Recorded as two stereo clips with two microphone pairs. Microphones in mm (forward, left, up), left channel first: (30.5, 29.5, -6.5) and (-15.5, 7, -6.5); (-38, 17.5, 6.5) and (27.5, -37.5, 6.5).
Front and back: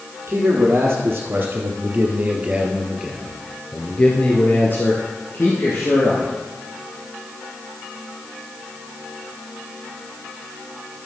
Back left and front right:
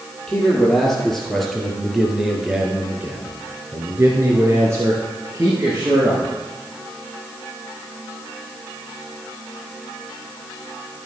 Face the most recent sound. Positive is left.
turn(degrees=15)